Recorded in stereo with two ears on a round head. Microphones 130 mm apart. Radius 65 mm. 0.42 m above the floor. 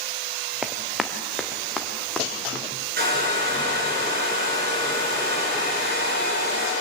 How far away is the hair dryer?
About 7 m.